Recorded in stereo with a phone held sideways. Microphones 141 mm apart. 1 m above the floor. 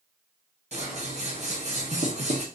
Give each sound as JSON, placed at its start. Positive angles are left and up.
{"t": 0.7, "sound": "scissors", "side_deg": -50, "distance_m": 1.0}